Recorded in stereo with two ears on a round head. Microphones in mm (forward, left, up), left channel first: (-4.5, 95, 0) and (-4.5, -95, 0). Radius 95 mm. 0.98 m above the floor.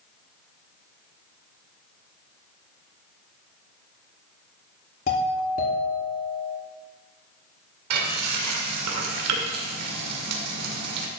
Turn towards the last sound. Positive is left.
turn(degrees=-90)